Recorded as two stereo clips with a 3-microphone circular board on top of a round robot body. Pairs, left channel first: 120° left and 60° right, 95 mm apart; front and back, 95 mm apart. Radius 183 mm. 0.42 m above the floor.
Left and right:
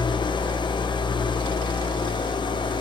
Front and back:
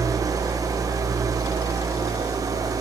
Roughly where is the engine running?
Behind left.